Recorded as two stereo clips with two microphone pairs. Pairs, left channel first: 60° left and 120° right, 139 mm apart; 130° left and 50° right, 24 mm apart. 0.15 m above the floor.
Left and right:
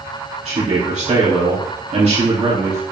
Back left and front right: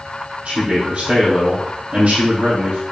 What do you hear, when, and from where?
0.5 s a man speaking: 90° right, 3.5 m